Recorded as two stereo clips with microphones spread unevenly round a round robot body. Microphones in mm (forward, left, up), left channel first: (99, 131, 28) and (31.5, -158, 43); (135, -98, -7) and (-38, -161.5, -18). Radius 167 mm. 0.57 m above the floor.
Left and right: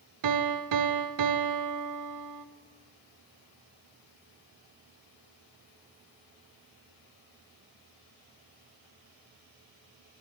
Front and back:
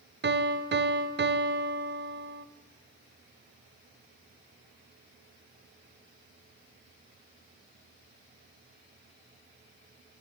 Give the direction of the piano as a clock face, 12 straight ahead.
5 o'clock.